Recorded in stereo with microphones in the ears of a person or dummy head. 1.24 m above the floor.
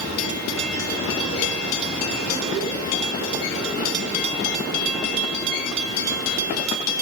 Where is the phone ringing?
No phone ringing in this recording.